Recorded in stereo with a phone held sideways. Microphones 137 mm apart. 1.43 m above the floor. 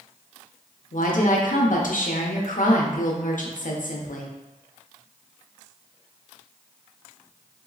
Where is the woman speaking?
75° left (ahead or behind), 0.6 m.